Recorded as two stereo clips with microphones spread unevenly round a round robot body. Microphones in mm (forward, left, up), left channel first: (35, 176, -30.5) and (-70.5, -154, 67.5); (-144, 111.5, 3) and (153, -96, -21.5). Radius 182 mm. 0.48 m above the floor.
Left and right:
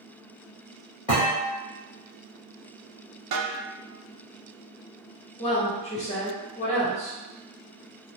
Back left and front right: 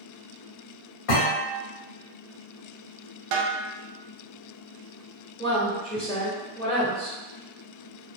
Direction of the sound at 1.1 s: 150° left.